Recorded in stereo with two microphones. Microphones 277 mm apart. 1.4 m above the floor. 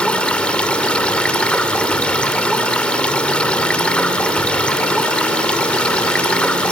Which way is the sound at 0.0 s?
5° left (ahead or behind).